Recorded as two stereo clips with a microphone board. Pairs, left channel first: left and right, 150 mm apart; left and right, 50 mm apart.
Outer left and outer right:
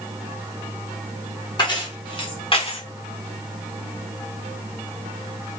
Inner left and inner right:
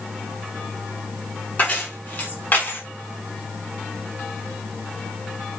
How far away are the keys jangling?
About 1.4 m.